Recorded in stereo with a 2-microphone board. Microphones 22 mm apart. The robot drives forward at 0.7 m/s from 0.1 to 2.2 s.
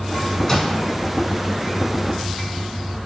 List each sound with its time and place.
0.5 s a microwave: 25° left (ahead or behind), 0.9 m; by 0.7 s 20° left (ahead or behind), 0.9 m